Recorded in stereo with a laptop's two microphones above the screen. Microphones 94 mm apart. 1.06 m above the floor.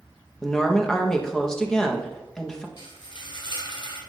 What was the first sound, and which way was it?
A woman speaking, 5° left (ahead or behind).